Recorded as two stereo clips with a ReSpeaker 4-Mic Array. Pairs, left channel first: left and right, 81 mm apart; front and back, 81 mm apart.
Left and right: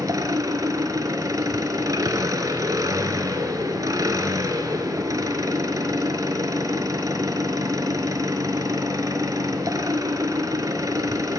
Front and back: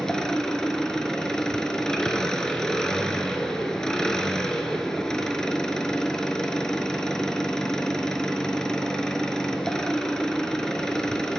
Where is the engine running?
80° right, 0.7 m.